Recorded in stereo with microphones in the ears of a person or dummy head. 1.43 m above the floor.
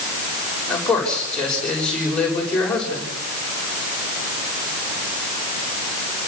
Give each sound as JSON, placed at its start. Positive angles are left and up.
{"t": 0.7, "sound": "a man speaking", "side_deg": 5, "distance_m": 6.5}